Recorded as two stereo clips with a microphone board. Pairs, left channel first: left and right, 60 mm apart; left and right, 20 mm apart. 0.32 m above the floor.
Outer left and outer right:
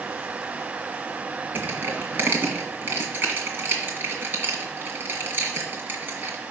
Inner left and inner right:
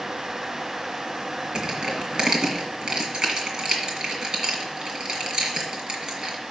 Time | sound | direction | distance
1.6 | crushing | 35° right (ahead or behind) | 1.9 m